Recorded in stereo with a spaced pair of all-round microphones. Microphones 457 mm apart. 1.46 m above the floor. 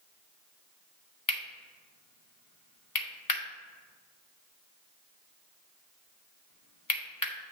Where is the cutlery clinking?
45° left (ahead or behind), 1.0 m.